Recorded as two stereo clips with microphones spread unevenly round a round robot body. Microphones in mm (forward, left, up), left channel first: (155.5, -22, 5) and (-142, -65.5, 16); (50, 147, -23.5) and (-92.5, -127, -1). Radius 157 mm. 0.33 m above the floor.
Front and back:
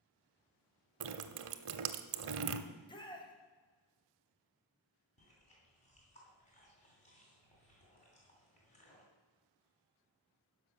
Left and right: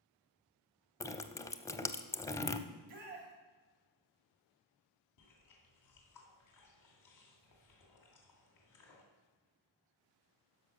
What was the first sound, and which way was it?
Dripping, 140° left.